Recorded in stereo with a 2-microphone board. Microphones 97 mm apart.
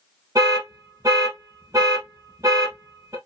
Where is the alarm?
35° right (ahead or behind), 1.3 m.